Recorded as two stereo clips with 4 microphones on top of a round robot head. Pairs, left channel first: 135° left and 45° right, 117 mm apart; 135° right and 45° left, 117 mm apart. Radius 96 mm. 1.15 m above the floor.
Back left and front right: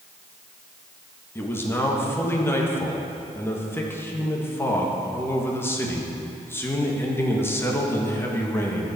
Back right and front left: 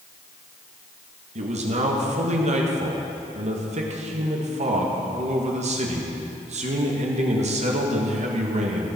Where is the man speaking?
65° left, 1.8 m.